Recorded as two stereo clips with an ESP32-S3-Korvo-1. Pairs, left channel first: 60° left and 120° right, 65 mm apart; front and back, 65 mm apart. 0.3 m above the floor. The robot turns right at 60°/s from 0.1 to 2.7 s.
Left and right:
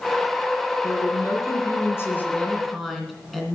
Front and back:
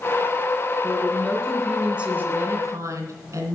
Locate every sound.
0.8 s a woman speaking: 40° left, 2.5 m; by 3.5 s 150° left, 2.5 m